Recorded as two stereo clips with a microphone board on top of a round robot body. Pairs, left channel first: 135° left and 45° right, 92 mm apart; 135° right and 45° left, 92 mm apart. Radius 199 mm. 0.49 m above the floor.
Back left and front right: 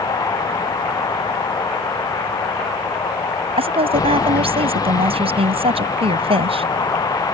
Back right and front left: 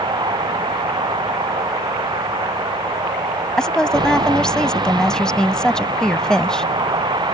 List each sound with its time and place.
0.0 s a vehicle: 85° left
3.6 s a woman speaking: 55° right